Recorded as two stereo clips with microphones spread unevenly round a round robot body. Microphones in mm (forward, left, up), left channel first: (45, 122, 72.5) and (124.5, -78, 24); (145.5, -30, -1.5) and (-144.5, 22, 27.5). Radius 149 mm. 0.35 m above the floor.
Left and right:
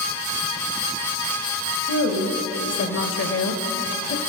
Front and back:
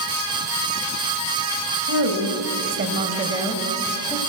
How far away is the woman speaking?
About 2.5 m.